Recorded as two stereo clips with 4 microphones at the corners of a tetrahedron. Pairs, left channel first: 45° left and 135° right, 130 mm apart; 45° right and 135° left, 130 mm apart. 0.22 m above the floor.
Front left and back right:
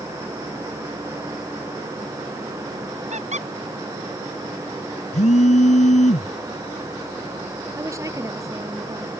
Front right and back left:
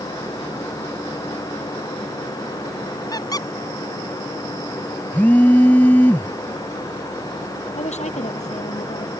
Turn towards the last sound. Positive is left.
turn(degrees=-70)